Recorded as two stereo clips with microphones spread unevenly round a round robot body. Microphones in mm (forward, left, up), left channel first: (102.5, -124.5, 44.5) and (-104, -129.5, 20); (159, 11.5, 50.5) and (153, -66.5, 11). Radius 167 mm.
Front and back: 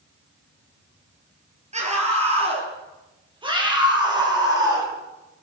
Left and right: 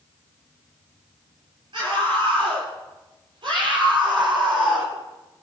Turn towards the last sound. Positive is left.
turn(degrees=-105)